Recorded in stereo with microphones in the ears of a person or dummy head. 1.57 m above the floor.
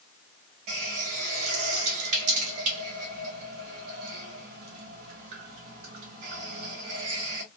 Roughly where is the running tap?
Right.